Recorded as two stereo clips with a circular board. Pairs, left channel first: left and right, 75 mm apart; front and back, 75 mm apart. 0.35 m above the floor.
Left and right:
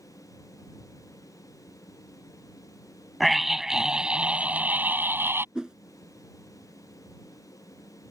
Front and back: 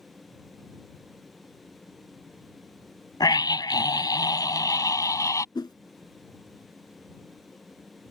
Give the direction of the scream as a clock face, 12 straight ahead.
12 o'clock.